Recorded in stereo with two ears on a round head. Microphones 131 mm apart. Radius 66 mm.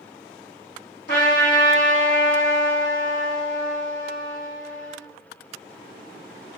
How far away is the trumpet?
About 1.5 m.